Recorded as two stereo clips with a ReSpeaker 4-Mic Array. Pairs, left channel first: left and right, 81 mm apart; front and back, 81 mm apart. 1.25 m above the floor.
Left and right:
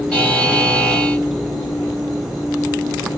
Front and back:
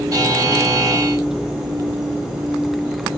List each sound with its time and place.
0.1 s a buzzer: 165° left, 1.5 m